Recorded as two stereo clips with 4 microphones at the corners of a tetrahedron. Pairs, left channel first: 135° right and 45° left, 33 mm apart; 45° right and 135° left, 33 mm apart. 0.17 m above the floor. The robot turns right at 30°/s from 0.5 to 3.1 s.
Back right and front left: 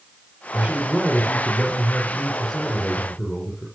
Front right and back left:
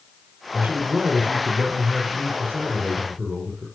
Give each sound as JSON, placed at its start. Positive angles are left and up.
{"t": 0.5, "sound": "a man speaking", "azimuth_deg": 90, "distance_m": 4.5}